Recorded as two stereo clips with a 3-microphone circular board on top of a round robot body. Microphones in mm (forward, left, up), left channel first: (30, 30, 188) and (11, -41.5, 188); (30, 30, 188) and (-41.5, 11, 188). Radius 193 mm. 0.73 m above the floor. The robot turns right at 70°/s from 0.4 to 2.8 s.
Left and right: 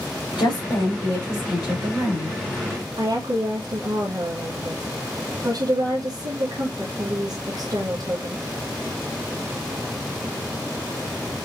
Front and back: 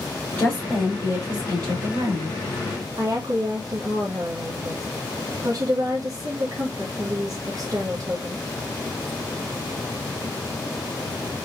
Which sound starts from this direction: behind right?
A woman speaking, at 3.0 s.